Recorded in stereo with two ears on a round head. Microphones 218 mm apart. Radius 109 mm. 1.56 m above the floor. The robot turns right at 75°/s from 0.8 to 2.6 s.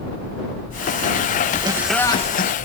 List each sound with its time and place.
1.6 s laughter: 20° right; by 2.5 s 50° left